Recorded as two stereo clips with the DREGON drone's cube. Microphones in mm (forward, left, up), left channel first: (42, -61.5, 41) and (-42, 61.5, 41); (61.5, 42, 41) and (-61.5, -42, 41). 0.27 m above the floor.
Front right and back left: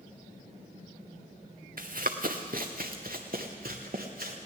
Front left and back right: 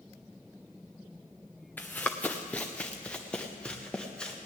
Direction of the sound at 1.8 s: 110° left.